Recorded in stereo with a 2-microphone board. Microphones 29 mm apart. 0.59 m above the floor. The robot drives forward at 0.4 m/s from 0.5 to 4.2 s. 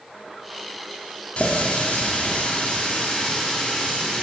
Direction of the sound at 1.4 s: 50° left (ahead or behind).